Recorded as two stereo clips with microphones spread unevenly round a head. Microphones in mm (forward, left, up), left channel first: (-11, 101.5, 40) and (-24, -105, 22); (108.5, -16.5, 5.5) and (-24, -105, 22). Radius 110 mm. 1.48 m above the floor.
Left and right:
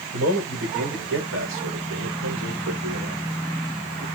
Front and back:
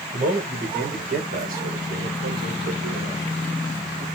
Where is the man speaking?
115° right, 6.5 m; by 4.0 s 125° right, 3.5 m.